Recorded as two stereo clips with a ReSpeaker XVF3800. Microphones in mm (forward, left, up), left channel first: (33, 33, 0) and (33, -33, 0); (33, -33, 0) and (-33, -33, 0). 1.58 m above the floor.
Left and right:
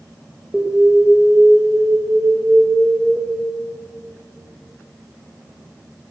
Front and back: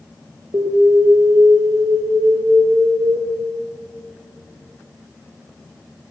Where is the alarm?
170° right, 2 m.